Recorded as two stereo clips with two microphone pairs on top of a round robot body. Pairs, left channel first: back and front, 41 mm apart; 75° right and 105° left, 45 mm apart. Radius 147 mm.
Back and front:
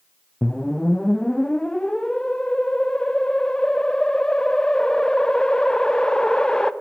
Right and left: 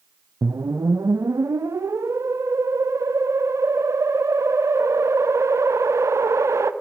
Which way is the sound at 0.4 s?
105° left.